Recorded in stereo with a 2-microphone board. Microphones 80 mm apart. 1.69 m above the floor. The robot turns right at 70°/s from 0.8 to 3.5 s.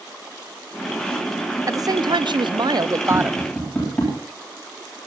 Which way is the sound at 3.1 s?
40° left (ahead or behind).